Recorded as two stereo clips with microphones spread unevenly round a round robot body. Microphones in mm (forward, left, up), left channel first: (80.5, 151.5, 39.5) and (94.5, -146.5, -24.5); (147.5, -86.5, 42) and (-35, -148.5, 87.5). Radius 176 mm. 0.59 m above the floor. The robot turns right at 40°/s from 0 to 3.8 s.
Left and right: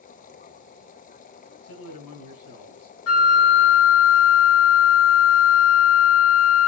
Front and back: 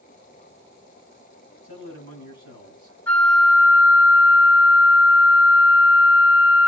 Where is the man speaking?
120° left, 6 m; by 3.0 s 175° left, 6 m.